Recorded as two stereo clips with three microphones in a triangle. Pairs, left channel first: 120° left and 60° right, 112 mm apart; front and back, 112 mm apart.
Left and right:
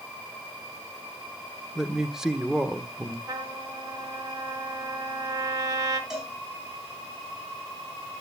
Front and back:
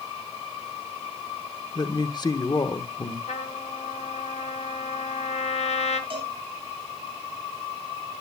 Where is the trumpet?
5° right, 1.6 m.